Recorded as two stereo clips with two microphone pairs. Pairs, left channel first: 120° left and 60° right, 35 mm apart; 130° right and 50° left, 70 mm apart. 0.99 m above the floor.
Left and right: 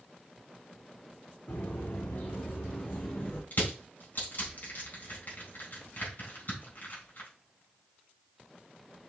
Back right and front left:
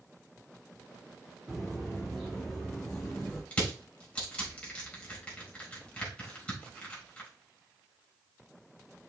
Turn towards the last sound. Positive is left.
turn(degrees=160)